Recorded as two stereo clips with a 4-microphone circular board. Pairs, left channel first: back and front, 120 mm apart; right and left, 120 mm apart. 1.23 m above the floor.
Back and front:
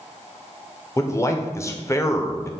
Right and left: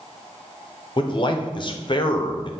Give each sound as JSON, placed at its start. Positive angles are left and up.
{"t": 1.0, "sound": "a man speaking", "azimuth_deg": -120, "distance_m": 0.5}